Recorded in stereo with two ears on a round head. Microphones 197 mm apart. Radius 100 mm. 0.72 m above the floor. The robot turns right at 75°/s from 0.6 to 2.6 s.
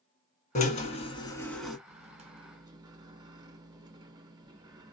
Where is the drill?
95° left, 1.2 m; by 1.8 s 175° right, 1.2 m.